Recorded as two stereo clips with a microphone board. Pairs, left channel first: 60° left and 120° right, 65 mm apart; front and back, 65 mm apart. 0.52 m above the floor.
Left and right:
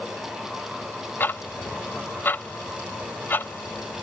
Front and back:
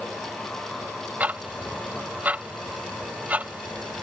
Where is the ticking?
115° left.